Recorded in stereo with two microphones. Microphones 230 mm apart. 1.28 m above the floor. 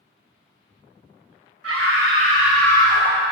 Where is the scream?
80° right, 1.1 m; by 3.3 s 30° left (ahead or behind), 1.9 m.